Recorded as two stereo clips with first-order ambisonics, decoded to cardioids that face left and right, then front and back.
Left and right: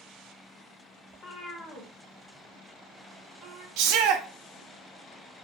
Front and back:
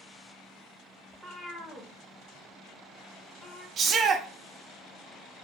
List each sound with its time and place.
1.1 s a cat meowing: 95° left, 0.7 m; by 3.7 s 45° right, 1.3 m
3.8 s a shout: 115° right, 0.6 m